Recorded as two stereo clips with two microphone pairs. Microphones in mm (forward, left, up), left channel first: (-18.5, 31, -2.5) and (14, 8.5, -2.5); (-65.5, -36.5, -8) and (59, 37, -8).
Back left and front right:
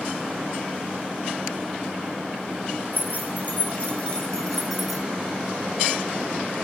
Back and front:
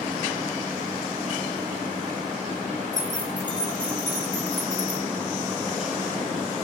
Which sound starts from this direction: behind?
Keys jangling, at 2.9 s.